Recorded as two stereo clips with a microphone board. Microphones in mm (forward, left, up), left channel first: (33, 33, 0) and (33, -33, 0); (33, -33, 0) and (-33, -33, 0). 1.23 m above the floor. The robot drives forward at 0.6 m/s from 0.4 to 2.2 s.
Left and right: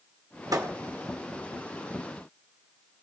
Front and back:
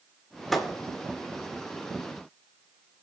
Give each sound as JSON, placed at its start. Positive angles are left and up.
{"t": 0.5, "sound": "a thud", "azimuth_deg": -85, "distance_m": 1.5}